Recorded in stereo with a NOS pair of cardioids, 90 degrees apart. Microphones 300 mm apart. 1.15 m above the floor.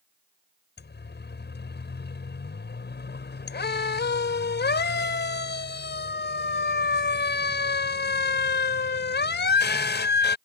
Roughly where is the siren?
Ahead left.